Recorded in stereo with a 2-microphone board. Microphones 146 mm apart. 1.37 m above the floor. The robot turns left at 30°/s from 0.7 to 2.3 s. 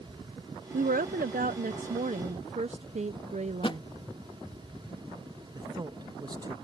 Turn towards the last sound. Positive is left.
turn(degrees=-30)  # may be behind; listen again after turning